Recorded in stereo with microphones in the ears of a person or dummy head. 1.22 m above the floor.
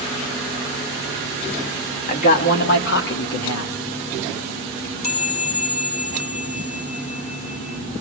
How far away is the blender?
I don't hear a blender.